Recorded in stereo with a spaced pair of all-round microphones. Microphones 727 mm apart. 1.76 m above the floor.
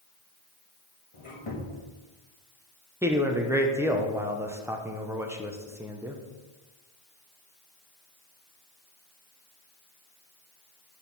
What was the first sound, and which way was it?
A squeak, 45° left (ahead or behind).